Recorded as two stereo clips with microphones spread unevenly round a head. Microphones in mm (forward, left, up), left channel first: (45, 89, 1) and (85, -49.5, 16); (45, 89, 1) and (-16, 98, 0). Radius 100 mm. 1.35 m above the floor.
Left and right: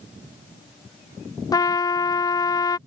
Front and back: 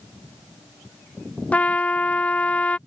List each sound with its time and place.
1.5 s a trumpet: 55° left